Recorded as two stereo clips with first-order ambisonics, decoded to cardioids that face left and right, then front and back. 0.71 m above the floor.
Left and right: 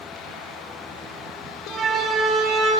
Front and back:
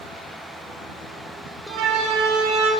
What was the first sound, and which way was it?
A siren, 160° right.